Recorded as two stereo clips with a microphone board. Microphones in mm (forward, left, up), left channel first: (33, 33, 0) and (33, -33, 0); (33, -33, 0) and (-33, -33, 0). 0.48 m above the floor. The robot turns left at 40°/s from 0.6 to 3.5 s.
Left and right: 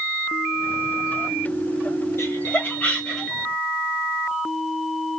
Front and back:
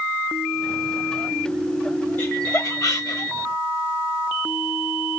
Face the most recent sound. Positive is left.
turn(degrees=-10)